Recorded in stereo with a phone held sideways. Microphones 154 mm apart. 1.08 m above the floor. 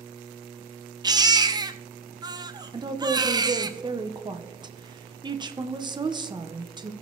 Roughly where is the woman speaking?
Right.